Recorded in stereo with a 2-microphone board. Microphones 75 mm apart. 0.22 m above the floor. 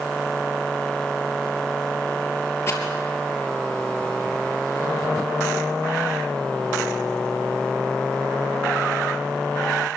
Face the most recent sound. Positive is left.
turn(degrees=35)  # may be behind; listen again after turning